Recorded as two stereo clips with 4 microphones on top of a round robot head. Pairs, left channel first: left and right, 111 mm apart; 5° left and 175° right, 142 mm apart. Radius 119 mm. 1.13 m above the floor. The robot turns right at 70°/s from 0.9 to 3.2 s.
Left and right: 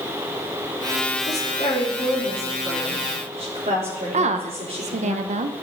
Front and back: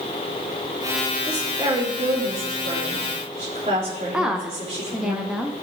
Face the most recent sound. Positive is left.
turn(degrees=-90)